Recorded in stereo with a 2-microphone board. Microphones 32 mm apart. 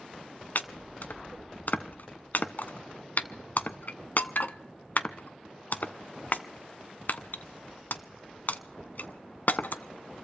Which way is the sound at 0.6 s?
60° left (ahead or behind).